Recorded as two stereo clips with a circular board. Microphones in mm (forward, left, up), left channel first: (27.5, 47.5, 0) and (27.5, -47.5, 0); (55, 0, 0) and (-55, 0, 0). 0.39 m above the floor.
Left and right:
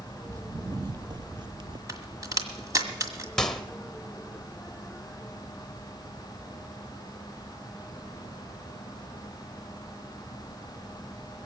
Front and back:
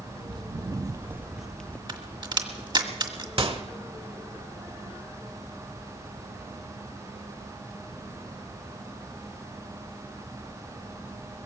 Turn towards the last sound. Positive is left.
turn(degrees=170)